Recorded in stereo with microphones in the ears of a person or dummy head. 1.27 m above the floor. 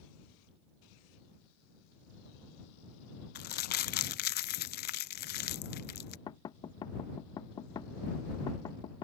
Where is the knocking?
20° left (ahead or behind).